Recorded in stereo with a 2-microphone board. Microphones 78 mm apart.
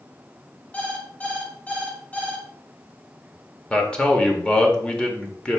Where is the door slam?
I don't hear a door slam.